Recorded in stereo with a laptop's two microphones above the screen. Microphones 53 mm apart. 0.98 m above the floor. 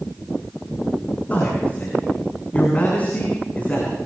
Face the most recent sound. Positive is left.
turn(degrees=30)  # may be behind; listen again after turning